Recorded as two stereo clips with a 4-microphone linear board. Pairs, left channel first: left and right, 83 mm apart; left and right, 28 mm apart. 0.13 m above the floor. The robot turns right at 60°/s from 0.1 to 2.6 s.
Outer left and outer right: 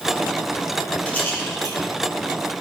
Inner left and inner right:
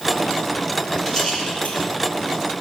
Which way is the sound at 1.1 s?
15° left (ahead or behind).